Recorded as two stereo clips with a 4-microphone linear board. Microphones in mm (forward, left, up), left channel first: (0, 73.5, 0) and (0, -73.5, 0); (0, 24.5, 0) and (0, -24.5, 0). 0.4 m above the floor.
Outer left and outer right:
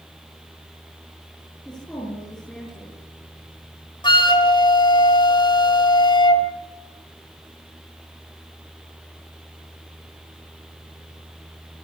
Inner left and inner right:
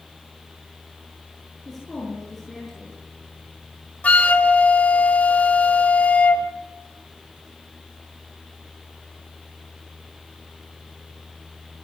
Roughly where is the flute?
Left.